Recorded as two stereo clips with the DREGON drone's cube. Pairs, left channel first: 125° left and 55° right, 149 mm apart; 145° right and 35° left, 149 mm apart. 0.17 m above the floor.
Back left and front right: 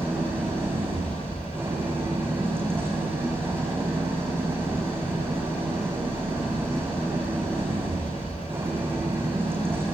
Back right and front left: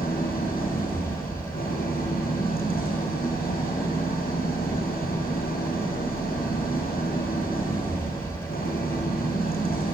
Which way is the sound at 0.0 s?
130° right.